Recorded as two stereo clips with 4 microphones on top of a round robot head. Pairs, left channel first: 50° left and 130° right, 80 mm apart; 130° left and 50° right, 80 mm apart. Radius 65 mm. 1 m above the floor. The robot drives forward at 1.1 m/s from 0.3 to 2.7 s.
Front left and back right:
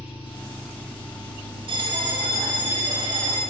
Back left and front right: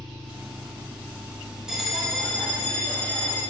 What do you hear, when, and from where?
0.0 s an engine running: 45° left, 2 m; by 3.5 s 125° left, 2.0 m
1.7 s a bell: 135° right, 1.2 m; by 3.4 s 155° right, 2 m